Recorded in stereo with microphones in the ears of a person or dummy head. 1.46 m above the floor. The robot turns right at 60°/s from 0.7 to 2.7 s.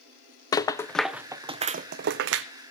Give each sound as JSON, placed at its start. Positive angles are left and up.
{"t": 0.5, "sound": "a rattle", "side_deg": 25, "distance_m": 0.5}